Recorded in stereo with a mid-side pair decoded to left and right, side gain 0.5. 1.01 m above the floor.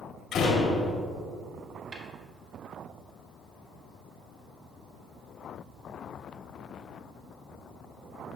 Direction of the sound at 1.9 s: 55° right.